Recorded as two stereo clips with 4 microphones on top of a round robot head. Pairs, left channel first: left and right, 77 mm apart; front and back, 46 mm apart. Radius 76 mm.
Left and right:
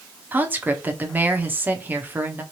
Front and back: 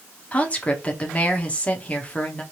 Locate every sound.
0.3 s a woman speaking: 40° right, 0.9 m